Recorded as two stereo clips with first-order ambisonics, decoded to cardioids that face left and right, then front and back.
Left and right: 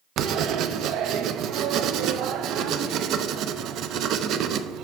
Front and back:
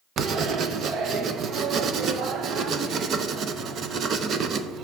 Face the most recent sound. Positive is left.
turn(degrees=-125)